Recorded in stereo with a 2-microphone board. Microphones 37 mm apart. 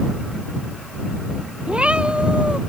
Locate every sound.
1.7 s a cat meowing: 30° right (ahead or behind)